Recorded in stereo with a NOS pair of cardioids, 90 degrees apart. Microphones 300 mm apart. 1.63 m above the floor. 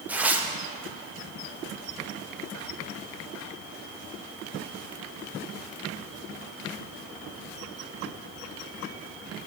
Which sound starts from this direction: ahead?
Tearing paper, at 0.1 s.